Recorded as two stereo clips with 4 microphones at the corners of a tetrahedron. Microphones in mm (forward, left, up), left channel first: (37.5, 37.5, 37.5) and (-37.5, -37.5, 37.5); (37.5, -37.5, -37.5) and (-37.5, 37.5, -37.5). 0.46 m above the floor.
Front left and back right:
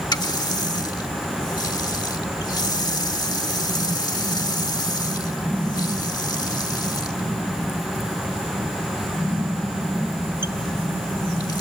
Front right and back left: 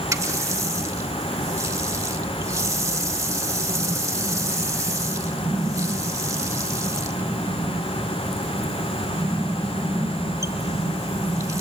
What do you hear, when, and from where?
0.1 s a running tap: 85° left, 1.0 m